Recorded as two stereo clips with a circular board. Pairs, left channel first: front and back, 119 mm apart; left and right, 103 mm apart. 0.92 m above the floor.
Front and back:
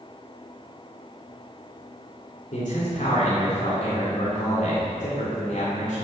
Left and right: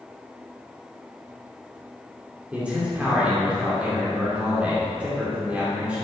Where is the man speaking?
10° right, 2.5 m.